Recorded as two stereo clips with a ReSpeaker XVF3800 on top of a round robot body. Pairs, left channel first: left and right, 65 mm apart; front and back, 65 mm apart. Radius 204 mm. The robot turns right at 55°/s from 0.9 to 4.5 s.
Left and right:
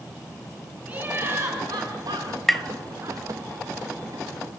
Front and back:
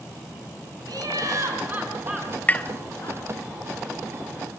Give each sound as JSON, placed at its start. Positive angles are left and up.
{"t": 0.9, "sound": "laughter", "azimuth_deg": -165, "distance_m": 6.0}
{"t": 2.5, "sound": "tapping", "azimuth_deg": 5, "distance_m": 0.9}